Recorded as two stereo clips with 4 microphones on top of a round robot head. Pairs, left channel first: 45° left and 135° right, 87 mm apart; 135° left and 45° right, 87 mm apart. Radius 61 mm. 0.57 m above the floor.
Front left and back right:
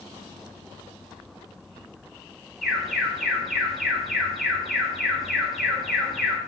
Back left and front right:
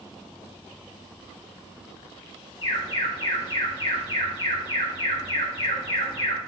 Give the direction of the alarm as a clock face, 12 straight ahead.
7 o'clock.